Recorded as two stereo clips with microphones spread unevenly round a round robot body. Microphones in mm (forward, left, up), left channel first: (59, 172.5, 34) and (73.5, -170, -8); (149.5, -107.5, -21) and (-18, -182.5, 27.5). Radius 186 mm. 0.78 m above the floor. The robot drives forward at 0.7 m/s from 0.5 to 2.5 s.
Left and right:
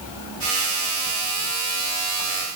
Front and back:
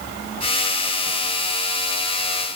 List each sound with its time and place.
Only background noise.